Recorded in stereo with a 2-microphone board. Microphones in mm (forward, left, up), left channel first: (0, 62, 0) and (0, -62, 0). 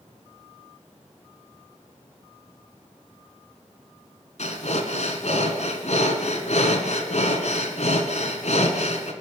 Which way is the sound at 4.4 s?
65° left (ahead or behind).